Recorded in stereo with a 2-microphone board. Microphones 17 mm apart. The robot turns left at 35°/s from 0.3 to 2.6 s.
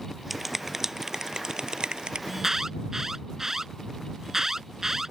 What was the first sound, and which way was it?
A finger snap, 10° right (ahead or behind).